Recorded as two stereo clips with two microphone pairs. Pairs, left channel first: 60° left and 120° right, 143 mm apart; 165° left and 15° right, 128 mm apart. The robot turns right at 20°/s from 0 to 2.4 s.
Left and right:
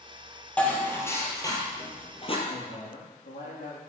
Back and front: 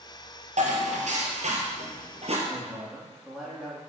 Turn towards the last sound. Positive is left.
turn(degrees=75)